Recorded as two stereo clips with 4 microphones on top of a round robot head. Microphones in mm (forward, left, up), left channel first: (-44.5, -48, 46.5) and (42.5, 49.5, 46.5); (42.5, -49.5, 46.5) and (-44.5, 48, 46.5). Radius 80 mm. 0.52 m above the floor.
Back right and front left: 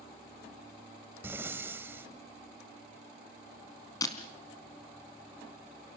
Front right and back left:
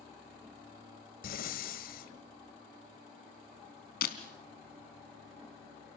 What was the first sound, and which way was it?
Breathing, 25° right.